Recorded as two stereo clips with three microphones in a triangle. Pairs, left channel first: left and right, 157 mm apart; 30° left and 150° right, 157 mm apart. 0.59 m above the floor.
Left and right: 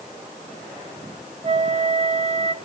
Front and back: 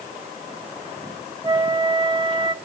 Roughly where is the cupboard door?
I don't hear a cupboard door.